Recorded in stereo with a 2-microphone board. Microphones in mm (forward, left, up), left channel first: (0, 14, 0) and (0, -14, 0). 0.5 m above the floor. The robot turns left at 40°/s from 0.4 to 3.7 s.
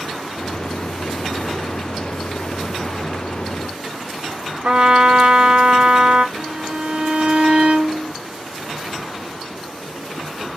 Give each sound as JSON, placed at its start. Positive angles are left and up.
{"t": 4.6, "sound": "a trumpet", "side_deg": -50, "distance_m": 1.0}
{"t": 6.3, "sound": "a violin", "side_deg": -50, "distance_m": 0.7}